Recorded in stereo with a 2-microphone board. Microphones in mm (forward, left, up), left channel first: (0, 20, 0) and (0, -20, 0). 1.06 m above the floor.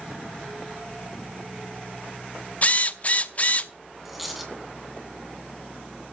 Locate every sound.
2.6 s a drill: 35° left (ahead or behind), 0.6 m
4.0 s a dropped coin: 5° right (ahead or behind), 2.5 m